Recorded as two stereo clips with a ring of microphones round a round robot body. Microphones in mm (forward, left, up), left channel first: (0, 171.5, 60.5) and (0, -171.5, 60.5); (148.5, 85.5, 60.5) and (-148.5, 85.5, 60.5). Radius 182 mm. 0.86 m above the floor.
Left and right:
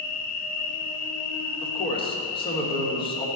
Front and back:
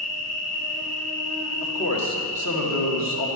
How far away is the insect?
About 1.6 m.